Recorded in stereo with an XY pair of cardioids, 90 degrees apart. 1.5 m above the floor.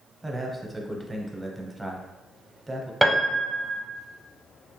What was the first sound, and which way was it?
A man speaking, 15° right.